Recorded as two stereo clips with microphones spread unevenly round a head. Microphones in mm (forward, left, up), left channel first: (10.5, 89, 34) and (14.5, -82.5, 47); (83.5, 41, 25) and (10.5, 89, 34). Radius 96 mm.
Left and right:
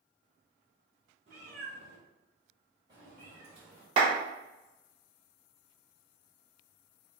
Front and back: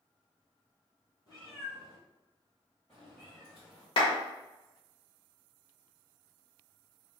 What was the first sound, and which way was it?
A cat meowing, 70° right.